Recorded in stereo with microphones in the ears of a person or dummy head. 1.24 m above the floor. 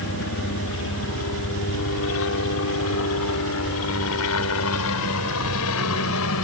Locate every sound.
0.0 s a helicopter: 60° left (ahead or behind); by 6.5 s 75° left (ahead or behind)